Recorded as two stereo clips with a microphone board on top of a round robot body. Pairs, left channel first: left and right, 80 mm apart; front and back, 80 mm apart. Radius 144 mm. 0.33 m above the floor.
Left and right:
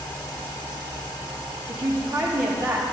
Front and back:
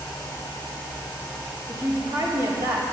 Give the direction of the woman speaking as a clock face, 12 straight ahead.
5 o'clock.